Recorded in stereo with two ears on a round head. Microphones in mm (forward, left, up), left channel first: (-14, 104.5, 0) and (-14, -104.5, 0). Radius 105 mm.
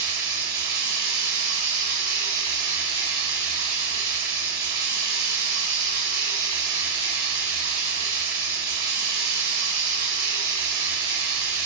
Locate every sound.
0.0 s running water: 45° right (ahead or behind), 1.6 m